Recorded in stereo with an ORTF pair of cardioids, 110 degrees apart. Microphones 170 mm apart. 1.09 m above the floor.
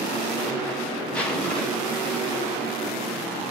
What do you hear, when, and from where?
1.1 s a zipper: 5° left, 0.8 m